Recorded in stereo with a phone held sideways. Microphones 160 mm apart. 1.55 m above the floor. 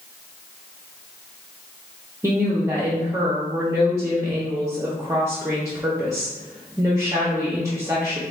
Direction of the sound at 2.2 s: 20° right (ahead or behind).